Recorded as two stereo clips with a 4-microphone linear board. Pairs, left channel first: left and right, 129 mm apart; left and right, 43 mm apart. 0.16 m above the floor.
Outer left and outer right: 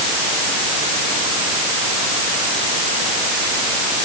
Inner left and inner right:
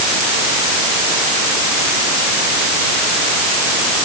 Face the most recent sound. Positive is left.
No sound to turn to.